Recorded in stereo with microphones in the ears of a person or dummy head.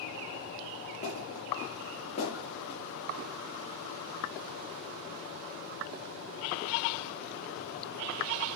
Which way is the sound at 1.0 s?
25° left (ahead or behind).